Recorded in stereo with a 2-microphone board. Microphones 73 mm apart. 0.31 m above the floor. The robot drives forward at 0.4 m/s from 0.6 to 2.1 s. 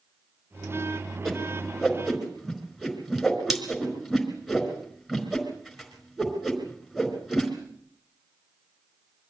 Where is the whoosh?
5° right (ahead or behind), 4.5 m.